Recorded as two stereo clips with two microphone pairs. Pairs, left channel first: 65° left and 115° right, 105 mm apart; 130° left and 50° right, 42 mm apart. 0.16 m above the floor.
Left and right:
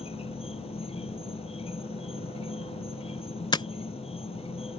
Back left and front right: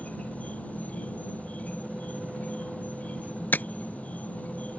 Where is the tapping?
100° left.